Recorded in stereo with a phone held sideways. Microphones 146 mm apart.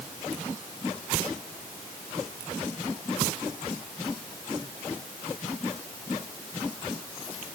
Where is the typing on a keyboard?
No typing on a keyboard in this recording.